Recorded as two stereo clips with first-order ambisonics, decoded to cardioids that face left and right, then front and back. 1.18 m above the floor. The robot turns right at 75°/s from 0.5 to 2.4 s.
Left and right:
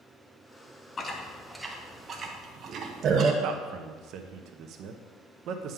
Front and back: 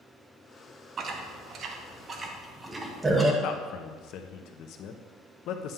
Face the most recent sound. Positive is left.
turn(degrees=-45)